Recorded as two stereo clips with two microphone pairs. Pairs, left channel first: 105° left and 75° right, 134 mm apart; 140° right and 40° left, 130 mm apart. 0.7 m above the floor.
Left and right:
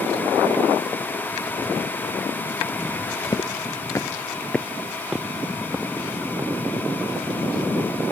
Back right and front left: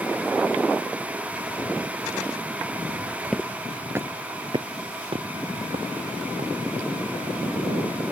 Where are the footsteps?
130° left; by 6.5 s straight ahead.